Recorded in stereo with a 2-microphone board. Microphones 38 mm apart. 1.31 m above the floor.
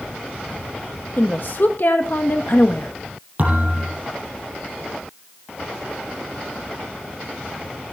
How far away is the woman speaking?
About 1.4 m.